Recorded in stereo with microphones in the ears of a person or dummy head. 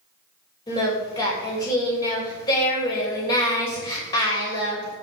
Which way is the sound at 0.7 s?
25° left (ahead or behind).